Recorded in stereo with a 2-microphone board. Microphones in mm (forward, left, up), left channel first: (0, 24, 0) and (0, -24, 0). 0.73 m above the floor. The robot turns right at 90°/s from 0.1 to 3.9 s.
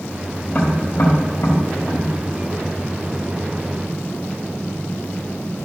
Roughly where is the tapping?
Left.